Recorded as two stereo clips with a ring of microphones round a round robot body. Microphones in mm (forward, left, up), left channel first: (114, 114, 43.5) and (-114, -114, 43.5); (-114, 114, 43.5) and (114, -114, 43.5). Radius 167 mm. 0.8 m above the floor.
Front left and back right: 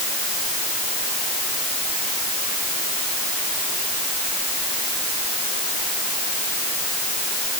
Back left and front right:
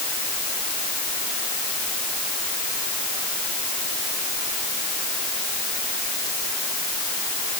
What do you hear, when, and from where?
Only background noise.